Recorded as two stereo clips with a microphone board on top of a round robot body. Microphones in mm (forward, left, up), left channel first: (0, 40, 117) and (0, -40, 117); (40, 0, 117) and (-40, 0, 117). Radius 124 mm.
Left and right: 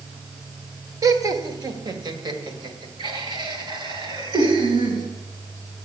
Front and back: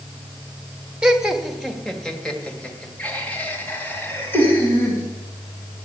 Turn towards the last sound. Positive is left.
turn(degrees=-65)